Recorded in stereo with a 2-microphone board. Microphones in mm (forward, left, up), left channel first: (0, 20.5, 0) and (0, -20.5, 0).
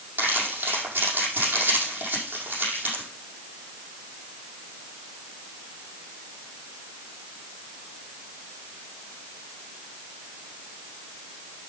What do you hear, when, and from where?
0.2 s crumpling: 50° right (ahead or behind), 6 m